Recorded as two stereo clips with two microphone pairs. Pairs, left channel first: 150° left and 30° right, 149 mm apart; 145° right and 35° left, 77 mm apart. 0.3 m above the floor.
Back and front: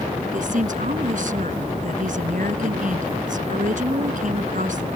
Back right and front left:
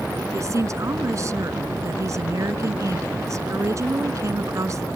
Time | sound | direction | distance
0.3 | a woman speaking | 5° right | ?